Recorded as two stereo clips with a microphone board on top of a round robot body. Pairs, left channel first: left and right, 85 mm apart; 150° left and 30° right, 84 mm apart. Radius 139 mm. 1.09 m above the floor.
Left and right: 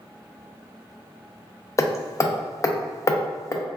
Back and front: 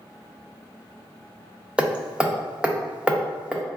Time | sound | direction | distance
1.8 | hammering | 45° left | 0.6 m